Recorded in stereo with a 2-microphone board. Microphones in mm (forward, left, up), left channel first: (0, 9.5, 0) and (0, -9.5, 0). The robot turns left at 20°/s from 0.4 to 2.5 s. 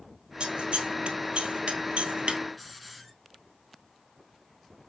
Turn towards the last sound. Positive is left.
turn(degrees=5)  # may be behind; listen again after turning